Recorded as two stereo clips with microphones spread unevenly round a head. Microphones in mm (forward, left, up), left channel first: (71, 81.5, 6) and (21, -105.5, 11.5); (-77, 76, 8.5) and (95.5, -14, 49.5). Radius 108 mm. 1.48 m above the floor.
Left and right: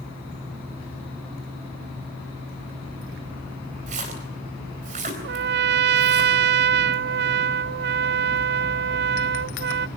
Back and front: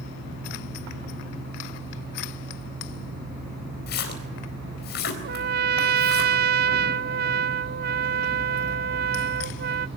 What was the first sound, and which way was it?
A splash, 160° right.